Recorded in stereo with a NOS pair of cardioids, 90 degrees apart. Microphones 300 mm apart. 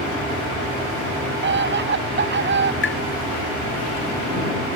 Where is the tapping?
40° left.